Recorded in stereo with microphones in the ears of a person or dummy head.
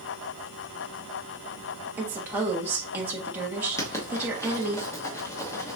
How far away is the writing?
About 1.0 m.